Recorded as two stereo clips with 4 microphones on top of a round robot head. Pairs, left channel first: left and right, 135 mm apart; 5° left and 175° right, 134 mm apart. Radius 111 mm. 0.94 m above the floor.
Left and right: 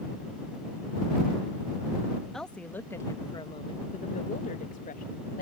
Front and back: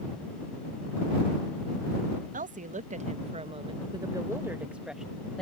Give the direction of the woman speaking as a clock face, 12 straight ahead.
6 o'clock.